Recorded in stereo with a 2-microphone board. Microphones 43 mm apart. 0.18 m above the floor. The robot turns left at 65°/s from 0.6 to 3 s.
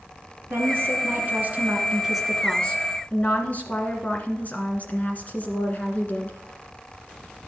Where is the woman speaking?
70° right, 1.8 m; by 6.4 s 130° left, 1.8 m.